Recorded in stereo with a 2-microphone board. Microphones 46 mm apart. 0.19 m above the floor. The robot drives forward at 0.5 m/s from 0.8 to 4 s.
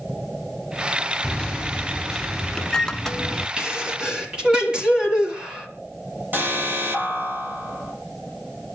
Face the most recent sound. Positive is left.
turn(degrees=-45)  # may be behind; listen again after turning